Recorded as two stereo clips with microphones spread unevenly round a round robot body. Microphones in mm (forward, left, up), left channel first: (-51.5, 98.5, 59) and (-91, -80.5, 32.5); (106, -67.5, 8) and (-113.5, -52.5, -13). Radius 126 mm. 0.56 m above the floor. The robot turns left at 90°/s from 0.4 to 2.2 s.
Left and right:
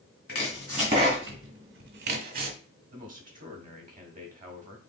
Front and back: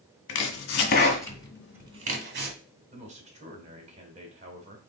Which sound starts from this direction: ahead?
Chopping, at 0.3 s.